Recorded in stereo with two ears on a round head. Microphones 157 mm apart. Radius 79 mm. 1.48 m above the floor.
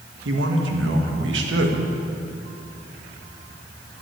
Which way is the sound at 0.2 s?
85° right.